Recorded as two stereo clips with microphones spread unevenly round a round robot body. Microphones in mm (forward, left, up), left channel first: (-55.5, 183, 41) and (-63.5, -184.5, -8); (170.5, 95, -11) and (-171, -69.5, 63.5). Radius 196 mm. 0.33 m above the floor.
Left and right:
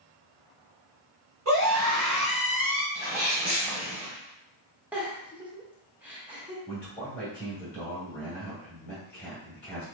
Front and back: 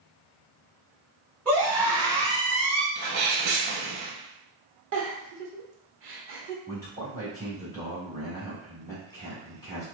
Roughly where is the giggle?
Behind right.